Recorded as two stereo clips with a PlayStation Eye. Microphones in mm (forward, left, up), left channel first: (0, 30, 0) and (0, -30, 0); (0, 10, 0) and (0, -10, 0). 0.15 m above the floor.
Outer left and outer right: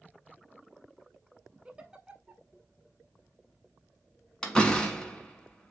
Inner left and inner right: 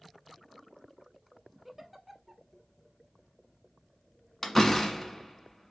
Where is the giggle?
15° right (ahead or behind), 0.7 m.